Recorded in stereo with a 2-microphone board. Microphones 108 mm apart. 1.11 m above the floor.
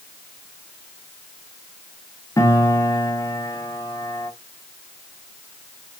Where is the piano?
30° left (ahead or behind), 0.8 m.